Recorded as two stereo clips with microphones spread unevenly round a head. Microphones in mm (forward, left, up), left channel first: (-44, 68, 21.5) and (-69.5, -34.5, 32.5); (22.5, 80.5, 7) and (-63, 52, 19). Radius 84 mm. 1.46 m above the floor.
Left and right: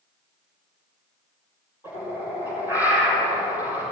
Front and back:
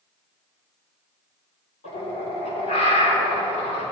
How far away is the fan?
I don't hear a fan.